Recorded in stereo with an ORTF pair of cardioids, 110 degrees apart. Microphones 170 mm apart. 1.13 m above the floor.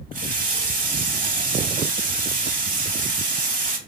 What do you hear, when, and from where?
0.1 s a running tap: 50° right, 0.8 m